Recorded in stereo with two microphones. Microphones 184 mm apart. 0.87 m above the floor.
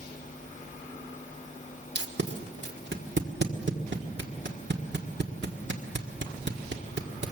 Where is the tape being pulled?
80° right, 1.6 m.